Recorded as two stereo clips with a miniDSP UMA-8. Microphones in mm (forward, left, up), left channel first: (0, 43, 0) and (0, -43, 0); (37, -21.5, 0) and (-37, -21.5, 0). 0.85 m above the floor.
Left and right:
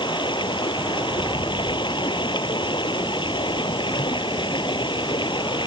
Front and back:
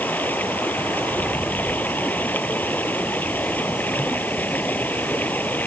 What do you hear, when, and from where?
0.0 s running water: 65° left